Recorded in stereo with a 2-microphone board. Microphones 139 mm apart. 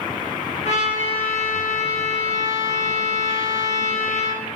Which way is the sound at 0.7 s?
50° left (ahead or behind).